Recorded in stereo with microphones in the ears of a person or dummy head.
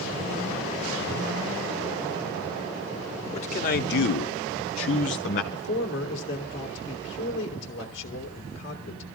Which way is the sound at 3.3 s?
35° left (ahead or behind).